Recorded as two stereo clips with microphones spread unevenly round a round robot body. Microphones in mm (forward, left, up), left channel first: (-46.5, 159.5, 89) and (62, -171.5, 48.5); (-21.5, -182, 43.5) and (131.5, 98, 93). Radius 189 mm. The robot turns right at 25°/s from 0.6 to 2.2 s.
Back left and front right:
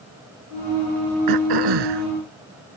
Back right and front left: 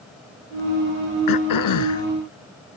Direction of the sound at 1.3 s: 100° right.